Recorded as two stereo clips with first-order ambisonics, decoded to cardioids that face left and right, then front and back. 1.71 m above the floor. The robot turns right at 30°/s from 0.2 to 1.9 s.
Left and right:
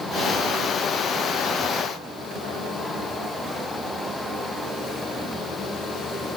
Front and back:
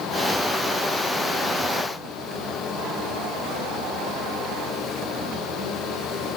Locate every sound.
Only background noise.